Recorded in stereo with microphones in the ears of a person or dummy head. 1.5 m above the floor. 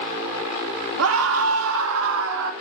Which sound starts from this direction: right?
A scream, at 1.0 s.